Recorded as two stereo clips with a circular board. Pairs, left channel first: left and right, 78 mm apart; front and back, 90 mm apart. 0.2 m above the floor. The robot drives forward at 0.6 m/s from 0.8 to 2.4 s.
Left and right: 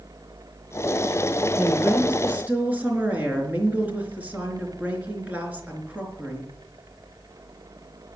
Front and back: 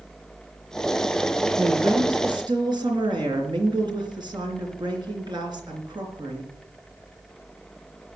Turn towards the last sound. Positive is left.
turn(degrees=-155)